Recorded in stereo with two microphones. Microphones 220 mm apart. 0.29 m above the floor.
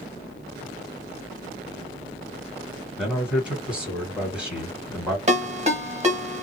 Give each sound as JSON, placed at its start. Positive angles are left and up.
{"t": 3.0, "sound": "a man speaking", "side_deg": -5, "distance_m": 2.0}
{"t": 5.3, "sound": "a ringtone", "side_deg": -30, "distance_m": 1.0}